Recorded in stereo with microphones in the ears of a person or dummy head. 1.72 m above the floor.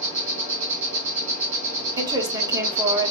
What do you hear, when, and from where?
0.0 s an insect: 40° right (ahead or behind), 1.9 m
2.0 s a woman speaking: 20° right (ahead or behind), 1.1 m